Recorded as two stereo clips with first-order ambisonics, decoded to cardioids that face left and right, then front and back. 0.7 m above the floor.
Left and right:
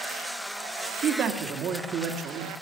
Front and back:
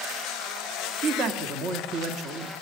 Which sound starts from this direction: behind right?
A man speaking, at 1.0 s.